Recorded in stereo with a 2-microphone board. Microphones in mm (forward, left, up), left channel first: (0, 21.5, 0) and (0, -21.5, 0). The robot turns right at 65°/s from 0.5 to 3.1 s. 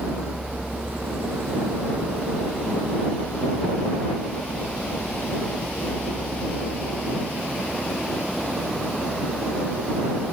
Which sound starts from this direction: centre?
A vehicle, at 0.0 s.